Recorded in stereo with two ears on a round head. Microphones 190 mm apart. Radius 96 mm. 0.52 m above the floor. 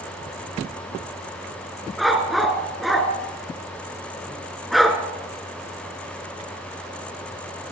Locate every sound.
2.0 s a dog barking: centre (ahead or behind), 2.5 m